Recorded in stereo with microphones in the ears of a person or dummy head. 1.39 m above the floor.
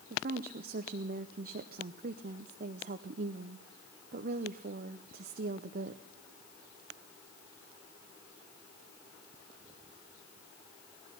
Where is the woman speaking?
50° right (ahead or behind), 0.6 m.